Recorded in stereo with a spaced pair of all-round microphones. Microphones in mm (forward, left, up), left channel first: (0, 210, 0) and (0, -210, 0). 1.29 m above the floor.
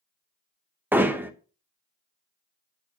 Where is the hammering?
5° right (ahead or behind), 0.8 m.